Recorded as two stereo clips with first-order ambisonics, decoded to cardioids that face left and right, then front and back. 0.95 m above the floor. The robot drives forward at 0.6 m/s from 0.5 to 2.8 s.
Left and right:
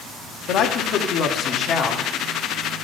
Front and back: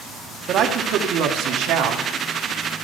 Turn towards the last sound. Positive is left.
turn(degrees=155)